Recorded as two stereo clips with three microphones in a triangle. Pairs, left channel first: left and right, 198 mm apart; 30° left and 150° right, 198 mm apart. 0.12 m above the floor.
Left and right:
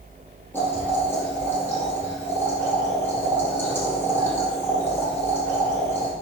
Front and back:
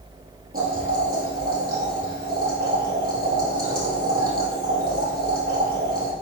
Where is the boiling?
170° left, 3.5 m.